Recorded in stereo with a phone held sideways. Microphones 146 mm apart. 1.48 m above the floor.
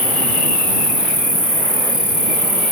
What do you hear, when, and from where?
0.0 s an insect: 30° left (ahead or behind)